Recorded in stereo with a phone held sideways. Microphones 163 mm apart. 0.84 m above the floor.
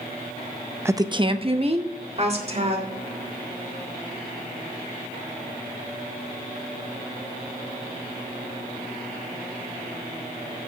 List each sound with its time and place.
0.8 s a woman speaking: 15° right (ahead or behind), 0.5 m; by 2.9 s 40° right (ahead or behind), 3 m